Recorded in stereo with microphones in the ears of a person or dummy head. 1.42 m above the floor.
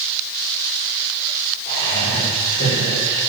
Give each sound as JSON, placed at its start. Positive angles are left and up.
{"t": 1.6, "sound": "laughter", "side_deg": 45, "distance_m": 6.0}